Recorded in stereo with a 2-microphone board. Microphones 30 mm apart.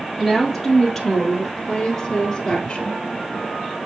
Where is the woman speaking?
Centre (ahead or behind), 2.5 m; by 3.0 s 35° left (ahead or behind), 1.8 m.